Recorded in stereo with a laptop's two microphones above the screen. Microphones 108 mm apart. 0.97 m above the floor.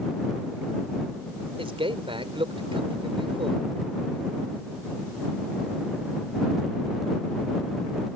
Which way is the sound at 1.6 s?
55° right (ahead or behind).